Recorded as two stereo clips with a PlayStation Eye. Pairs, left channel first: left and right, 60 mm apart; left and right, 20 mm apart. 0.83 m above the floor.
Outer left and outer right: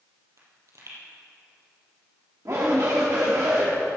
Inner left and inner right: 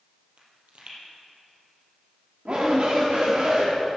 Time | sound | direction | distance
0.4 | a pop | 70° right (ahead or behind) | 3.5 m
2.5 | a shout | 60° right (ahead or behind) | 1.3 m